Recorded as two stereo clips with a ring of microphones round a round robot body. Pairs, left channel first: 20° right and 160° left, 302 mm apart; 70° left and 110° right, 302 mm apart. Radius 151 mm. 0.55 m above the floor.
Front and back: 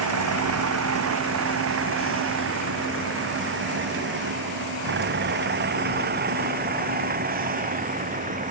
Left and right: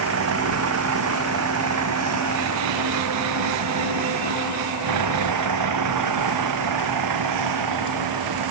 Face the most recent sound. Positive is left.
turn(degrees=-135)